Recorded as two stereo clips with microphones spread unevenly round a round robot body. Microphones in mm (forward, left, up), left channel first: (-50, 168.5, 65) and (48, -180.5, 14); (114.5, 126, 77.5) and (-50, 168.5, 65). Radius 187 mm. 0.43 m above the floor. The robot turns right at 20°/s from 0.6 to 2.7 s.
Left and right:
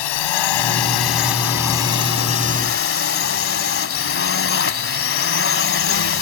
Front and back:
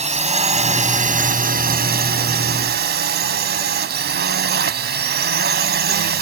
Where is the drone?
120° left; by 6.2 s 165° left.